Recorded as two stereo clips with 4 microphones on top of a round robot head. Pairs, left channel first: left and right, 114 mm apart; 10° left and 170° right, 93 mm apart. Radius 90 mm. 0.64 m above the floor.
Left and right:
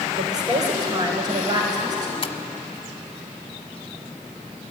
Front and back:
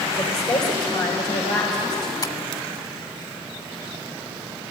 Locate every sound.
0.2 s a woman speaking: 35° right, 3 m; by 2.1 s 40° right, 4.5 m
2.2 s tapping: 50° left, 1.3 m